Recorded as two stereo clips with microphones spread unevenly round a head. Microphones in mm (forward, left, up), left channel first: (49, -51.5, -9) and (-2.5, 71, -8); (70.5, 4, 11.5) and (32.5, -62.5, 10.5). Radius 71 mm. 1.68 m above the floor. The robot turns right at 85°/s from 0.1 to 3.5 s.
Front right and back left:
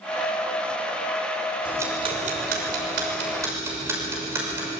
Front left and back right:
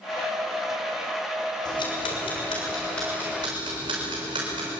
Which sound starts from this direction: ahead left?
Ticking, at 1.6 s.